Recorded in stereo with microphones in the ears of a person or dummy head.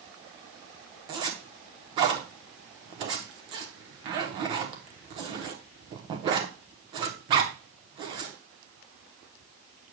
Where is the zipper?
30° right (ahead or behind), 1.0 m.